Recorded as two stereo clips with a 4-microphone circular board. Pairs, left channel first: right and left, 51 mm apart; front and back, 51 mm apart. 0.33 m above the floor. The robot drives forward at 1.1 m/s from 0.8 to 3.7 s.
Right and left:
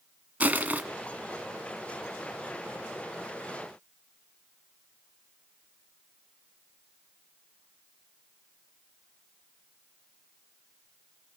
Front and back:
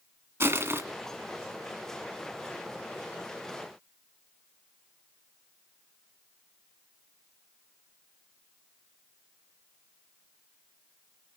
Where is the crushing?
145° left, 1.9 m.